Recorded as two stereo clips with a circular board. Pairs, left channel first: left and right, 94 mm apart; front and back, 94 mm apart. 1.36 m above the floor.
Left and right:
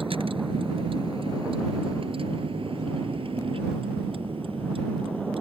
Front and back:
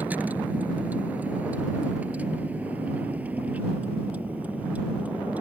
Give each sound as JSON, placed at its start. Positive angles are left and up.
{"t": 0.0, "sound": "a vehicle", "azimuth_deg": -110}